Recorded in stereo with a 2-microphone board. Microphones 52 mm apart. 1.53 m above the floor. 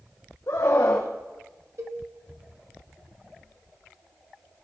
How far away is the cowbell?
About 1.9 m.